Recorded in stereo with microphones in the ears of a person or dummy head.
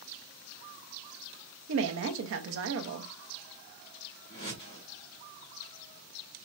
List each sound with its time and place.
1.7 s a woman speaking: 80° right, 0.8 m
4.3 s a whoosh: 20° left (ahead or behind), 1.8 m